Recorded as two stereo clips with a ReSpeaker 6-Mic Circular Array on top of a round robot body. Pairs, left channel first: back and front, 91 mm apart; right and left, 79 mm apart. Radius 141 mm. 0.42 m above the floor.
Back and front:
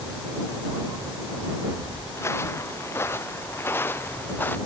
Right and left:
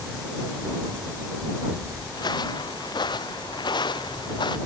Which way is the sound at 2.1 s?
120° right.